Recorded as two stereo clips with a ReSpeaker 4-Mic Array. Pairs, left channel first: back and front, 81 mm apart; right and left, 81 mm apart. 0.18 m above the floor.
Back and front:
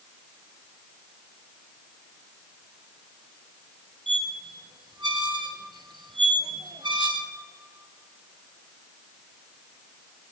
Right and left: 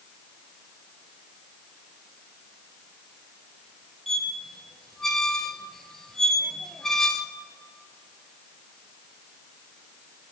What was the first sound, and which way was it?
A squeak, 5° right.